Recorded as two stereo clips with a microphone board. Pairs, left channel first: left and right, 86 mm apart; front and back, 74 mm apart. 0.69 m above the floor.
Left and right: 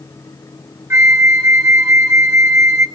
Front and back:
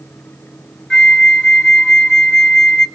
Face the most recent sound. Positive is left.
turn(degrees=-70)